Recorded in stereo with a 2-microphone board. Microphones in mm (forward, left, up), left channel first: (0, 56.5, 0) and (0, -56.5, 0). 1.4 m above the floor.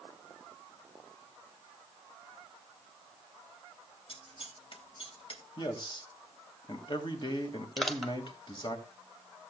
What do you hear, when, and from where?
4.1 s scissors: 55° left (ahead or behind), 2.5 m
5.6 s a man speaking: 45° left (ahead or behind), 2 m
7.8 s crushing: centre (ahead or behind), 1.4 m